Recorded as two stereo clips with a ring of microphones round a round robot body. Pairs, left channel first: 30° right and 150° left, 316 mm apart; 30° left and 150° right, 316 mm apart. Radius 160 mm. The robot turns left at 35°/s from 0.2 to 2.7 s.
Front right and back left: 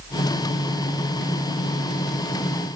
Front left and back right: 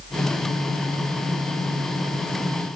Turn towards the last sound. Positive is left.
No sound to turn to.